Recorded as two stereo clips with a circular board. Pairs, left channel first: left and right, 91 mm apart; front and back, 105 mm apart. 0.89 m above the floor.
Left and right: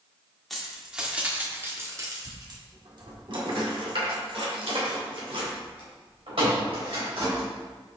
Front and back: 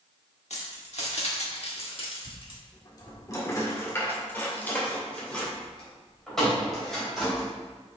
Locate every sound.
0.5 s keys jangling: straight ahead, 1.5 m; by 7.5 s 90° right, 4 m